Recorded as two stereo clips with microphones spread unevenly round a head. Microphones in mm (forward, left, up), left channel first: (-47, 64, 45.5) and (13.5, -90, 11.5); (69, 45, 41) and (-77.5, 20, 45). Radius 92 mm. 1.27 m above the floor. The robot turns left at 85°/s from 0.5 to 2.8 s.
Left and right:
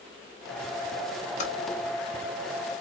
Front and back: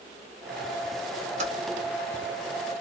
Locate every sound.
1.4 s typing on a keyboard: 155° left, 1.0 m; by 1.5 s 140° left, 1.0 m